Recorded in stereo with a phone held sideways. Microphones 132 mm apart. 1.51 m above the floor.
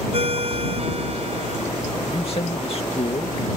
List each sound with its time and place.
0.1 s a ringtone: 50° right (ahead or behind)
2.1 s a man speaking: 50° left (ahead or behind)